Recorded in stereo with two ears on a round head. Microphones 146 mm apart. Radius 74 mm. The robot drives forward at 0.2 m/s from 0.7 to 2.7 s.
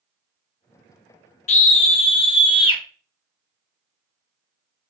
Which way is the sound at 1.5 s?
45° left (ahead or behind).